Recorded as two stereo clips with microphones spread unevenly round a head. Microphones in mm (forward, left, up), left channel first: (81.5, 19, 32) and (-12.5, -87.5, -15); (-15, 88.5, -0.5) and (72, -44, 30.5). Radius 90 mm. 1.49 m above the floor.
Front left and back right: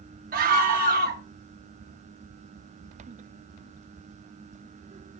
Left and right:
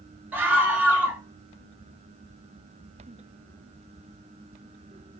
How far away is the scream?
About 0.6 m.